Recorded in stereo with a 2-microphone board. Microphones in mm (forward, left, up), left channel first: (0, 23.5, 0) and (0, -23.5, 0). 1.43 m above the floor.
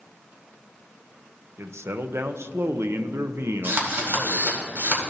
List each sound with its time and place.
1.6 s a man speaking: 65° right (ahead or behind), 0.5 m
3.6 s a drill: 50° right (ahead or behind), 1.9 m